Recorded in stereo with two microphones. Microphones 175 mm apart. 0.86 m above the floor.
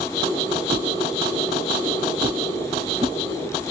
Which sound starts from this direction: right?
A whoosh, at 0.7 s.